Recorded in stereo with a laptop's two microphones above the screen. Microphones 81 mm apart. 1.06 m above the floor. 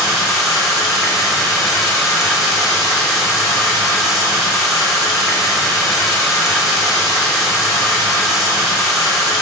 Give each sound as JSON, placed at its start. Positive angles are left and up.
{"t": 0.0, "sound": "running water", "side_deg": -5, "distance_m": 1.3}